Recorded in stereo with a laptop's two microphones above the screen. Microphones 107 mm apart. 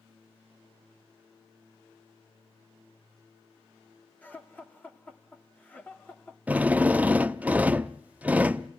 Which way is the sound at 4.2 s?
15° left (ahead or behind).